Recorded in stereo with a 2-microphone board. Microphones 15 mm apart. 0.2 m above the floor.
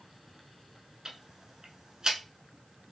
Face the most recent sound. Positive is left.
turn(degrees=-50)  # may be behind; listen again after turning